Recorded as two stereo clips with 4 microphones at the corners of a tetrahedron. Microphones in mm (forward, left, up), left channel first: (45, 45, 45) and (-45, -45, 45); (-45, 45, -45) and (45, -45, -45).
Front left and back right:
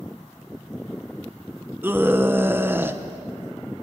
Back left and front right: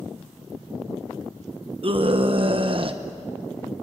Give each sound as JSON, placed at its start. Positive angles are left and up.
{"t": 1.8, "sound": "a scream", "azimuth_deg": -65, "distance_m": 0.9}